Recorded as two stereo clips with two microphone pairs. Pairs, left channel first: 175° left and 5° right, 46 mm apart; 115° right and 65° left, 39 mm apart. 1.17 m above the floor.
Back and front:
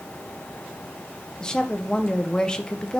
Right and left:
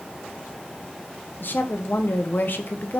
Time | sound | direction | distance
1.4 | a woman speaking | 115° right | 0.8 m